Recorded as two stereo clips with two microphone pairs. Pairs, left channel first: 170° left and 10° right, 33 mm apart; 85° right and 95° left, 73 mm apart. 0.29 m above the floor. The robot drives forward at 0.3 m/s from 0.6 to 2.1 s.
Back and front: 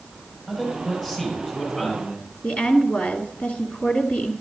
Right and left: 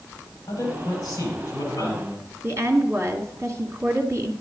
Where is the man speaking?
125° right, 7 m.